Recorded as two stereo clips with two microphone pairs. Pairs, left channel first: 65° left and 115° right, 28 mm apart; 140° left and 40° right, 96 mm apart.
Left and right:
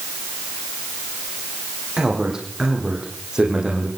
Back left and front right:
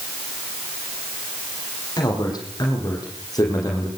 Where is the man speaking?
Straight behind, 8.5 m; by 3.9 s 175° right, 9 m.